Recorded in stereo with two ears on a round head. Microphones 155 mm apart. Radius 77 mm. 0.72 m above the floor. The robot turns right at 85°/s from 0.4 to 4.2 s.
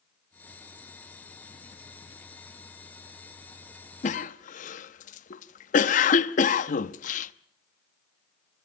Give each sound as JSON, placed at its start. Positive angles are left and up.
{"t": 4.0, "sound": "a cough", "side_deg": 45, "distance_m": 0.9}